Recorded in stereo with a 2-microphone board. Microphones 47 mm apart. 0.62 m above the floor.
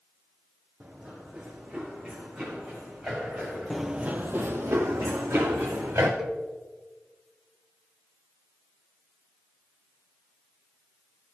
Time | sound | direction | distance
0.8 | running footsteps | 25° right (ahead or behind) | 2.5 m
3.7 | running footsteps | centre (ahead or behind) | 0.7 m
6.2 | a cowbell | 10° right (ahead or behind) | 1.1 m